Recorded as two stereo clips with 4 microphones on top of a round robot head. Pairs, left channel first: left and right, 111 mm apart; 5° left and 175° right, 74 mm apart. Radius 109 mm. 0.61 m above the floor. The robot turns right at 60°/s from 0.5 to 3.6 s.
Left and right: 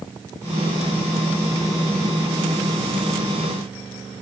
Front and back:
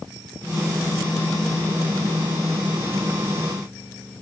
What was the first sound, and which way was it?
Only background noise.